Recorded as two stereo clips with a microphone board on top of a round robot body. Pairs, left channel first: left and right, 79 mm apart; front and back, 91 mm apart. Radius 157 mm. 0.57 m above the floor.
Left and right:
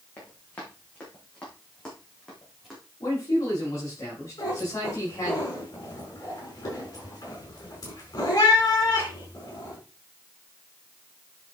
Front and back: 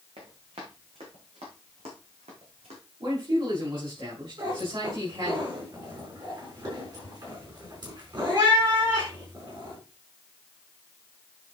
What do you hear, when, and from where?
0.2 s running footsteps: 160° left, 3.5 m; by 2.8 s straight behind, 3.5 m
3.0 s a man speaking: 145° left, 5 m
4.4 s a cat meowing: 140° left, 4.5 m